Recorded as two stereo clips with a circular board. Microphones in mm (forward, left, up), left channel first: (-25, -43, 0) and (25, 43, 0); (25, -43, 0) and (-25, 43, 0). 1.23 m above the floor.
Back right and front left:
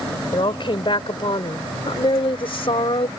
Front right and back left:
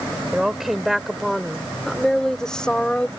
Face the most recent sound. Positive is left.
turn(degrees=-140)